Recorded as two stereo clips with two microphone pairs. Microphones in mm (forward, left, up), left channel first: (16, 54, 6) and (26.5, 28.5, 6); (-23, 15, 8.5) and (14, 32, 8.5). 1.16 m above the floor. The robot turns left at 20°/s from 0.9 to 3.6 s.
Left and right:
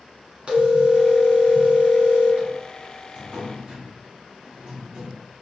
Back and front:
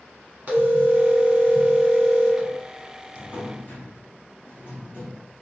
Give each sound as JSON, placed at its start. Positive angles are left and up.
{"t": 0.5, "sound": "a phone ringing", "azimuth_deg": -20, "distance_m": 1.5}
{"t": 3.1, "sound": "a drawer", "azimuth_deg": -110, "distance_m": 1.2}